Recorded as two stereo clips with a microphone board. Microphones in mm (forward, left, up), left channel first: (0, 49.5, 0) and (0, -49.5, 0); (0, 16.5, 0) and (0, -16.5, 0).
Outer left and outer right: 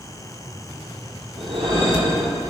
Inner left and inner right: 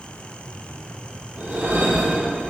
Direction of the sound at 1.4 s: 65° right (ahead or behind).